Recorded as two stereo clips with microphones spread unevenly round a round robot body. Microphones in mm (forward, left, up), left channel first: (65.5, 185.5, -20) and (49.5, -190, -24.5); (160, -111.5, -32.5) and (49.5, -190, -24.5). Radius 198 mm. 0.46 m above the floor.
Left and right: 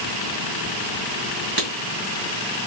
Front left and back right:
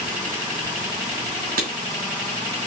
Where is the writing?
160° right, 2 m.